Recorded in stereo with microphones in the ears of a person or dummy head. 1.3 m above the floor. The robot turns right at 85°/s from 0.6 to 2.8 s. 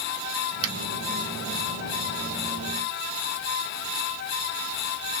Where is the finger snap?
35° right (ahead or behind), 1.9 m; by 0.7 s 25° right (ahead or behind), 1.9 m.